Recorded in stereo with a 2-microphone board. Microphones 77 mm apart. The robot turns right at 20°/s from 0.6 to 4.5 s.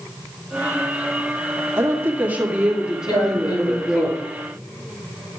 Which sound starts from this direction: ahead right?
A woman speaking, at 1.8 s.